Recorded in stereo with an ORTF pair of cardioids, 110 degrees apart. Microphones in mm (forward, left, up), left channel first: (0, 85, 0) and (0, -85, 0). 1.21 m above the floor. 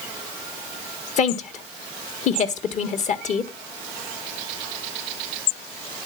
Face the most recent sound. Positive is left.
turn(degrees=50)